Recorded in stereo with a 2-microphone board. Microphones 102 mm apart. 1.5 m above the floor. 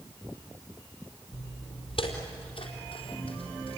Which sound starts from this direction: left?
Footsteps, at 1.3 s.